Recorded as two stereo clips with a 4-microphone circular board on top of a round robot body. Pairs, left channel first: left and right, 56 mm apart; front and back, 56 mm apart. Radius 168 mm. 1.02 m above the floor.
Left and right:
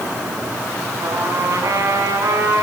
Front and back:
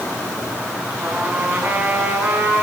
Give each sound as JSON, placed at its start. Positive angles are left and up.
{"t": 1.0, "sound": "a trumpet", "azimuth_deg": -120, "distance_m": 5.5}